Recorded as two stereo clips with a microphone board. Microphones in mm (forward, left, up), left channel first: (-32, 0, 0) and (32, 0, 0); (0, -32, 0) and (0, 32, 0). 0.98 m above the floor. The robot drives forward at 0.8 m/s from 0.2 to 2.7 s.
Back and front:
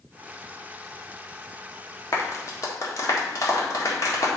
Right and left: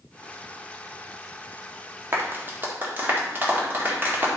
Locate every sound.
2.1 s a clap: 140° left, 1.6 m; by 4.3 s 150° left, 2.0 m